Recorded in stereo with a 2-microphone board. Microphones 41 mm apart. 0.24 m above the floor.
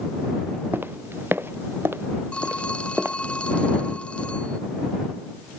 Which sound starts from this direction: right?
Footsteps, at 0.7 s.